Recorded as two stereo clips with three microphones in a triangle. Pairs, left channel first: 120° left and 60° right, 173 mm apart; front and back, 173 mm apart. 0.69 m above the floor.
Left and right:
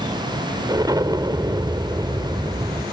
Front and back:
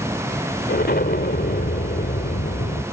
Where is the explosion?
5° left.